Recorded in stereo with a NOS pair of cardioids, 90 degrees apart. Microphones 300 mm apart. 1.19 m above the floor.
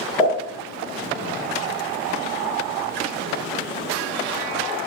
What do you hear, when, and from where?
0.2 s a pop: 5° right, 1.8 m